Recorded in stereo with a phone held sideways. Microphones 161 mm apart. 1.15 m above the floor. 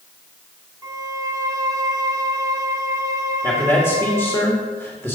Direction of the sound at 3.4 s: 5° left (ahead or behind).